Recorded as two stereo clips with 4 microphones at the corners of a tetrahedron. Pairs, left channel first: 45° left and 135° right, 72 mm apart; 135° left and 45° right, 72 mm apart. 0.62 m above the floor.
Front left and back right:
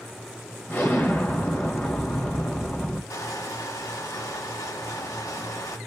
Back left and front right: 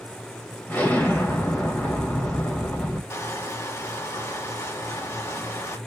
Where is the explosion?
85° left, 1.8 m.